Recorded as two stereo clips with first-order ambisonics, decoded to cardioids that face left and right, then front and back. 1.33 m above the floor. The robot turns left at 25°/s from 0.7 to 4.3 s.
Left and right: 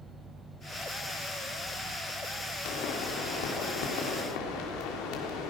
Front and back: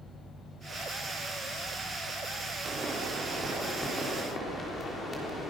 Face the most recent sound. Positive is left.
turn(degrees=75)